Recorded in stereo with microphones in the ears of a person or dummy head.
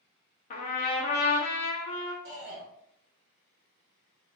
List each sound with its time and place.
0.5 s a trumpet: 35° left (ahead or behind), 0.5 m
2.2 s a shout: 60° right (ahead or behind), 1.3 m